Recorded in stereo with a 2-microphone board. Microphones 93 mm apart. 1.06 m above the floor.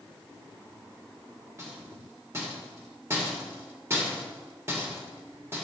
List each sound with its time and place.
1.6 s a rattle: 30° right (ahead or behind), 1.6 m